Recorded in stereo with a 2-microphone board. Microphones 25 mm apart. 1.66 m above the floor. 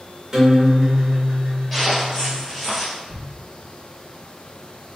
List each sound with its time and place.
0.3 s a guitar: 25° right (ahead or behind), 1.8 m
1.7 s footsteps: 5° left (ahead or behind), 1.7 m
3.1 s a thud: 25° right (ahead or behind), 1.3 m